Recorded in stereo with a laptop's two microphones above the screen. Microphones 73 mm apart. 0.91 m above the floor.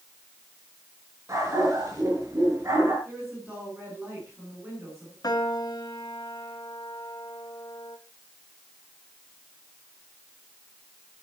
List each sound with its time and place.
1.3 s a dog barking: 45° right (ahead or behind), 6 m
3.0 s a woman speaking: 25° right (ahead or behind), 9 m
5.2 s a piano: 55° left (ahead or behind), 1.7 m